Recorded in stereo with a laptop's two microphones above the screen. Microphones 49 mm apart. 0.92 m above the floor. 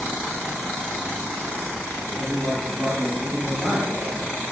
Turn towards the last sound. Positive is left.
turn(degrees=-40)  # may be behind; listen again after turning